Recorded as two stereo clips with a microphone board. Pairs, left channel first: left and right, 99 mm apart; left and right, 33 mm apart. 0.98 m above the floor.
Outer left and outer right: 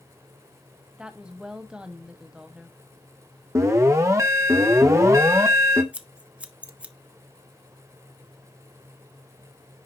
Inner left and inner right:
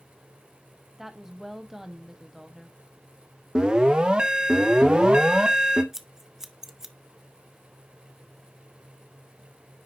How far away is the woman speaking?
About 1.2 m.